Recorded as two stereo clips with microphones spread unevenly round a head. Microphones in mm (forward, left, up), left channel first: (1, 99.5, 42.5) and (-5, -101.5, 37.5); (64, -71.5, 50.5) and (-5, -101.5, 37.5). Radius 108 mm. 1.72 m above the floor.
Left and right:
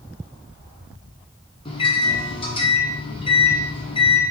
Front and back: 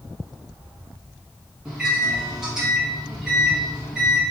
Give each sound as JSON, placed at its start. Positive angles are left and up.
{"t": 1.6, "sound": "a microwave", "azimuth_deg": 105, "distance_m": 0.5}